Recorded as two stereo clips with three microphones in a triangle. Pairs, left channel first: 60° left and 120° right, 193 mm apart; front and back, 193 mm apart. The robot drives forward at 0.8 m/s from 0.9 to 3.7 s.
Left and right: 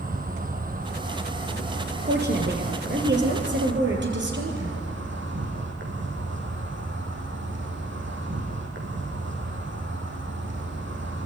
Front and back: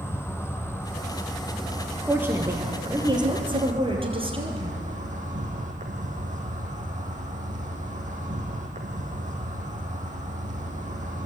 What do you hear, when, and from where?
0.0 s an insect: 75° right, 2 m; by 11.3 s 130° right, 2.5 m
2.1 s a woman speaking: 100° right, 3.5 m; by 4.8 s 120° right, 3.5 m